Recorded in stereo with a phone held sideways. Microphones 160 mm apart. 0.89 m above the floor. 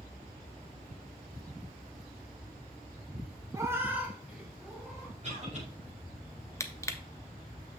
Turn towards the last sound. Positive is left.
turn(degrees=15)  # may be behind; listen again after turning